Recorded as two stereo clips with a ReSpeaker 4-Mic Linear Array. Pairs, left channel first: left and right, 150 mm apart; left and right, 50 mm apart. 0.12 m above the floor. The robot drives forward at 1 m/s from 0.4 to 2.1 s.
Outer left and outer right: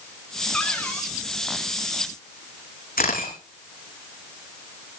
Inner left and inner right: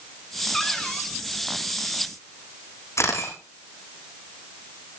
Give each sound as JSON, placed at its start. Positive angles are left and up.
{"t": 0.5, "sound": "a cupboard door", "side_deg": 5, "distance_m": 4.5}
{"t": 3.0, "sound": "a camera shutter", "side_deg": 80, "distance_m": 6.5}